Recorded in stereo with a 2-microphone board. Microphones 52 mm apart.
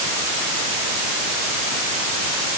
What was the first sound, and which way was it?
Only background noise.